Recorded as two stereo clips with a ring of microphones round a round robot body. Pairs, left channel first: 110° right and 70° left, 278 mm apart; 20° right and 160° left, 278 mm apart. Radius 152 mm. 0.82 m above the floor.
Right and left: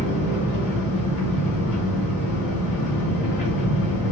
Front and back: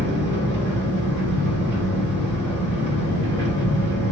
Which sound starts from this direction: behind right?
An engine running, at 0.0 s.